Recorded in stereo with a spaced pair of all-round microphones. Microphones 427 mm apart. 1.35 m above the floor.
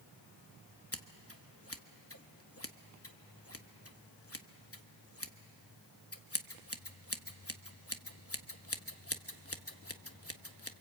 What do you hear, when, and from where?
0.9 s scissors: 30° left (ahead or behind), 1.0 m